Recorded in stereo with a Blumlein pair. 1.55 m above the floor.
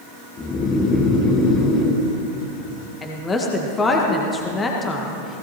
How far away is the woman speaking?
About 1.9 m.